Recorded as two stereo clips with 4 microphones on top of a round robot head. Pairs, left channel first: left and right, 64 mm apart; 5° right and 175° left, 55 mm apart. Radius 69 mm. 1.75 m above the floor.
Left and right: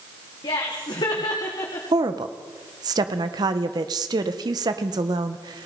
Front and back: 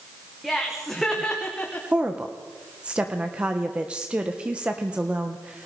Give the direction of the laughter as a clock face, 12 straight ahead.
9 o'clock.